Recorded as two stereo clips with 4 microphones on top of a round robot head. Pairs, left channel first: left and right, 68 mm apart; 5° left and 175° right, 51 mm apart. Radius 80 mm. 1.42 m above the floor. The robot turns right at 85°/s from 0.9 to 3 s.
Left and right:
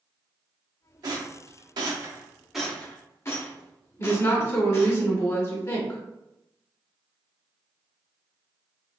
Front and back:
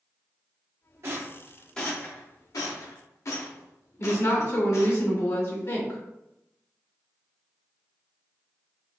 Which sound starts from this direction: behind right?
A rattle, at 1.0 s.